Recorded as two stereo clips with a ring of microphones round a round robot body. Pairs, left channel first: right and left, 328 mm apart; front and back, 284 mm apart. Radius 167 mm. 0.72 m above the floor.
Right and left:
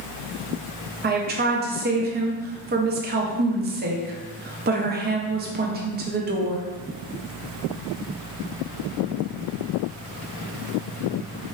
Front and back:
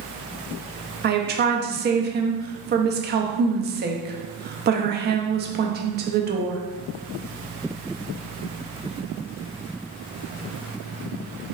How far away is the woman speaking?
About 0.5 m.